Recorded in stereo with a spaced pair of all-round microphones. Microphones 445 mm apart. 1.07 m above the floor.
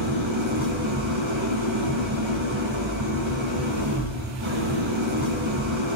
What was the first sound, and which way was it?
An engine running, 80° right.